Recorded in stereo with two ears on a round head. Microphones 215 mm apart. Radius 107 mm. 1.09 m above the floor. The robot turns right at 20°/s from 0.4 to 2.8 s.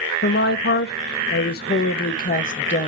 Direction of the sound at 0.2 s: 85° left.